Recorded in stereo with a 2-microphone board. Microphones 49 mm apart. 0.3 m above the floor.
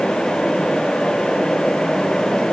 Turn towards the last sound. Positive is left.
No sound to turn to.